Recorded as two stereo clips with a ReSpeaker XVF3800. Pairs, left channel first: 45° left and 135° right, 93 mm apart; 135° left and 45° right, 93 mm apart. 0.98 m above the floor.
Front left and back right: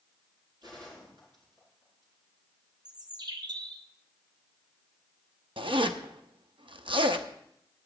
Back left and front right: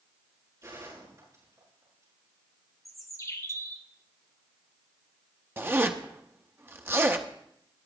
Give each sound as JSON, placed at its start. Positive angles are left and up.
{"t": 0.6, "sound": "a gunshot", "azimuth_deg": -95, "distance_m": 8.0}
{"t": 2.9, "sound": "a bird", "azimuth_deg": -170, "distance_m": 1.0}
{"t": 5.6, "sound": "a zipper", "azimuth_deg": -110, "distance_m": 0.7}